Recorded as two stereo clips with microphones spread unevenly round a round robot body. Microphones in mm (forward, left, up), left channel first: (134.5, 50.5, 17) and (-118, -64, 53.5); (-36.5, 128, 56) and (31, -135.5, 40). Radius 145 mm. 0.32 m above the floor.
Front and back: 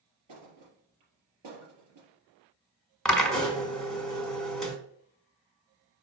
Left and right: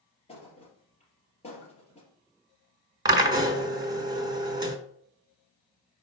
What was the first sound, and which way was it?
A thud, 175° left.